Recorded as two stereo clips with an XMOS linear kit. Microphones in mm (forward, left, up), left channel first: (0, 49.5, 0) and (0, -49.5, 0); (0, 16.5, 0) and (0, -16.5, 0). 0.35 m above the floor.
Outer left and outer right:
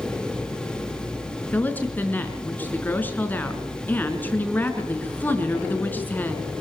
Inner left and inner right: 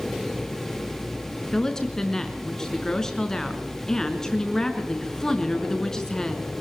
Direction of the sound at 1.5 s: 20° left (ahead or behind).